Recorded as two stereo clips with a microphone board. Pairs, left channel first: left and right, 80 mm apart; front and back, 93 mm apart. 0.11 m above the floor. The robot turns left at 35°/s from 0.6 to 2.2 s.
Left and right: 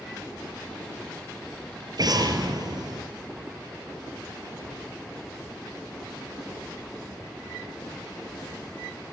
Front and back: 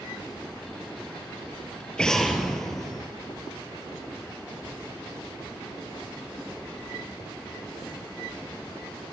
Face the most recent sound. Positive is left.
turn(degrees=-85)